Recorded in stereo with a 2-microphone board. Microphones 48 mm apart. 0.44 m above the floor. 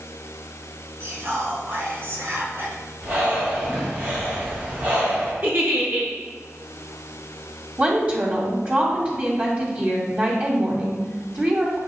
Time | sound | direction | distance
1.0 | whispering | 55° right (ahead or behind) | 2.5 m
3.0 | breathing | 35° right (ahead or behind) | 3 m
5.4 | a giggle | 45° right (ahead or behind) | 2.5 m
7.8 | a woman speaking | 30° right (ahead or behind) | 2.5 m